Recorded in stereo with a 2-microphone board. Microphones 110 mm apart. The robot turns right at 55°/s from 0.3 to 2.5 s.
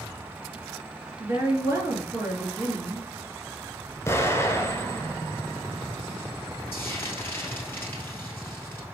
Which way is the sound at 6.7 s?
20° left (ahead or behind).